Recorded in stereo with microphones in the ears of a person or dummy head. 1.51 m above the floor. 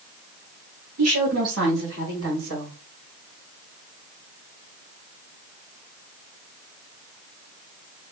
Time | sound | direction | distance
1.0 | a woman speaking | 80° right | 1.1 m